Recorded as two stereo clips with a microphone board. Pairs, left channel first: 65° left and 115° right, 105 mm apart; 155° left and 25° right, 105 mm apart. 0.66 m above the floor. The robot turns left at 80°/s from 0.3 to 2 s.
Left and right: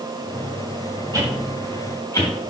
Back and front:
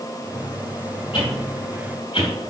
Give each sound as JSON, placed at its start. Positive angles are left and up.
{"t": 1.1, "sound": "a whoosh", "azimuth_deg": -170, "distance_m": 3.5}